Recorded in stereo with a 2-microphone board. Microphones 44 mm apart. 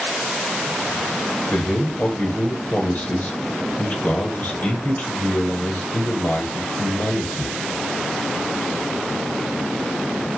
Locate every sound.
1.5 s a man speaking: 45° left (ahead or behind), 1.1 m